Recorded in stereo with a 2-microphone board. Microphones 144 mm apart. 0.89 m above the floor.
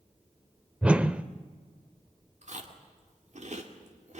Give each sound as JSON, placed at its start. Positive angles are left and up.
{"t": 0.8, "sound": "a whoosh", "side_deg": -10, "distance_m": 0.7}
{"t": 2.4, "sound": "chewing", "side_deg": -55, "distance_m": 2.5}